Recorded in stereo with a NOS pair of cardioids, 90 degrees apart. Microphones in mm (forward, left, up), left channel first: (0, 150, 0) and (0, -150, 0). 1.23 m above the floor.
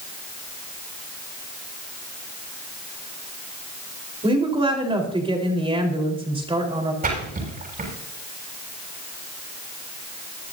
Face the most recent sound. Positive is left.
turn(degrees=-30)